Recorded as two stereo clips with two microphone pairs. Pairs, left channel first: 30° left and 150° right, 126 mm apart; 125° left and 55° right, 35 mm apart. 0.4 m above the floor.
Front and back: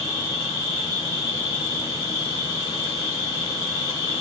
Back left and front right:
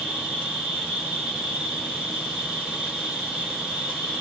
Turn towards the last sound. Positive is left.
turn(degrees=25)